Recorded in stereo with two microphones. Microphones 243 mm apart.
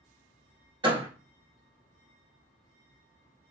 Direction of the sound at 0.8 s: 20° right (ahead or behind).